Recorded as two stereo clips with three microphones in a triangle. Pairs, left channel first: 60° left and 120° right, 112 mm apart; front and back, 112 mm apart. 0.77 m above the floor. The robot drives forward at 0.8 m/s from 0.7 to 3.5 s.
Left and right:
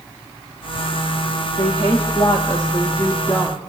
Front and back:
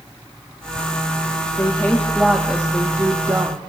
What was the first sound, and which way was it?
A woman speaking, 60° left.